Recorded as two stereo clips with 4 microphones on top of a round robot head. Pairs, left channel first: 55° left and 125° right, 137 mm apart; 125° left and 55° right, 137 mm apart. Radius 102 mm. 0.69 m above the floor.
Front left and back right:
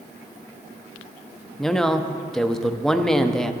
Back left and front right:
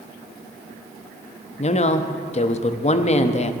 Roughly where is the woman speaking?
Behind left.